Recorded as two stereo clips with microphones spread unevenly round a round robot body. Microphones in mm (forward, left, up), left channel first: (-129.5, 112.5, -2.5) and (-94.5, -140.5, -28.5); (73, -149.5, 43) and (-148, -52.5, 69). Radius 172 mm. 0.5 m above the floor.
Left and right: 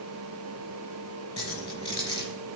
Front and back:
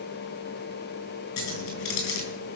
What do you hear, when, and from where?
1.4 s keys jangling: 20° left, 4.5 m